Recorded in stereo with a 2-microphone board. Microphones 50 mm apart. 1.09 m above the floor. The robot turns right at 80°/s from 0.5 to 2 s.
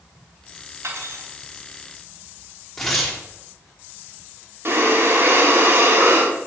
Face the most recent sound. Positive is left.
turn(degrees=-55)  # may be behind; listen again after turning